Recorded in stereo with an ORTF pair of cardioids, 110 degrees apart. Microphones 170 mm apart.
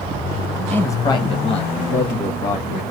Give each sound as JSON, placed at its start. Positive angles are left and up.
{"t": 0.7, "sound": "a man speaking", "azimuth_deg": 10, "distance_m": 0.6}